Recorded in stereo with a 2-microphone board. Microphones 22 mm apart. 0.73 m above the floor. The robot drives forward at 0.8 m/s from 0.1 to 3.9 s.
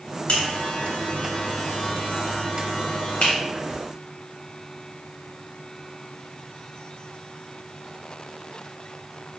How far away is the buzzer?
About 3 m.